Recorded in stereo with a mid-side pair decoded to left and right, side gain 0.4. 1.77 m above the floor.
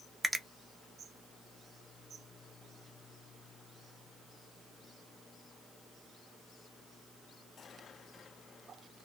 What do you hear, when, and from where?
0.2 s a finger snap: 25° right, 0.7 m